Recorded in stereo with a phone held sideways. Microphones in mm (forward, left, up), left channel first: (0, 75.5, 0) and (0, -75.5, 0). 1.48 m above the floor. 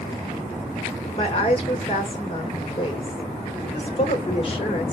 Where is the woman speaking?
40° left (ahead or behind), 1.7 m.